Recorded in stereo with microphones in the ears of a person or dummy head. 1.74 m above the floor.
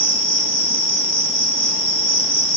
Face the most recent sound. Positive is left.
turn(degrees=25)  # may be behind; listen again after turning